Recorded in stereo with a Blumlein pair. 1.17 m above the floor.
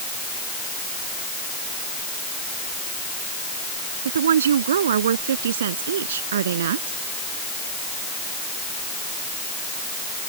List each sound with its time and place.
4.0 s a woman speaking: 65° right; by 7.0 s 60° right